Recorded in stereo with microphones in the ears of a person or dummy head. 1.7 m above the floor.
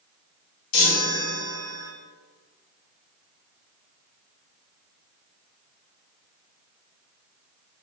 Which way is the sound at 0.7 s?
85° left.